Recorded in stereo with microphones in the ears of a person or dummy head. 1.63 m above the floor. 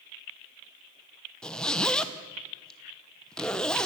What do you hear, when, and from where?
1.4 s a zipper: 5° left (ahead or behind), 1.1 m